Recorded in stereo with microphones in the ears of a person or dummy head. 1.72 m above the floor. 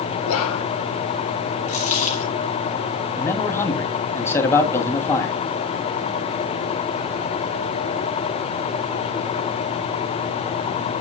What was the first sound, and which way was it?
Whispering, 75° left (ahead or behind).